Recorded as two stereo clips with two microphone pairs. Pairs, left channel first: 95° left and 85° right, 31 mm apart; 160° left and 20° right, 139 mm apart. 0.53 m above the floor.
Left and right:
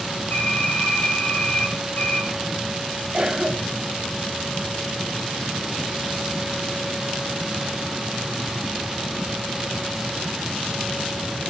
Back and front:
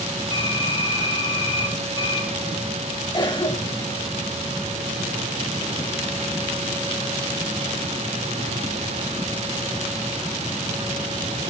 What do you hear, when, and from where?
0.3 s typing on a keyboard: 110° left, 10 m
3.1 s a cough: 145° right, 3.5 m